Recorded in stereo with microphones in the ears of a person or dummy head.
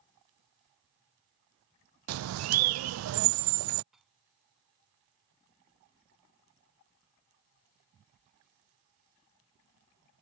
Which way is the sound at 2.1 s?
80° right.